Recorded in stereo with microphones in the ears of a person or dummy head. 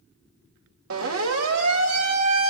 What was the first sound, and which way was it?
A siren, 65° right (ahead or behind).